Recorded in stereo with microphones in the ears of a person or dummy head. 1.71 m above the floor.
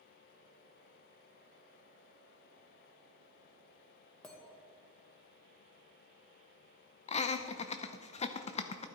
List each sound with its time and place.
4.2 s a clink: 10° left (ahead or behind), 1.4 m
7.1 s laughter: 30° left (ahead or behind), 0.5 m